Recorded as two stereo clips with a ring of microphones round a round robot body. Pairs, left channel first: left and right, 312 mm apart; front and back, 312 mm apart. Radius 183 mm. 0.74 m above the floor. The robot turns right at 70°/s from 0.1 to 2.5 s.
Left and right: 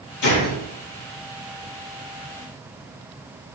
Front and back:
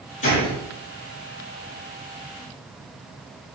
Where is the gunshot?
55° left, 4 m; by 0.6 s 80° left, 4 m.